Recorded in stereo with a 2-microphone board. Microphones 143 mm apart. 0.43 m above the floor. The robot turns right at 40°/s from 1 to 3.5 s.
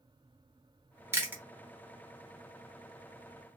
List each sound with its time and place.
1.1 s chewing: 20° right (ahead or behind), 1.0 m; by 1.4 s 10° right (ahead or behind), 1.0 m